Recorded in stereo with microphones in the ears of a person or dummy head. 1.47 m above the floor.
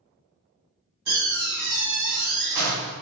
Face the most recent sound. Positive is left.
turn(degrees=-65)  # may be behind; listen again after turning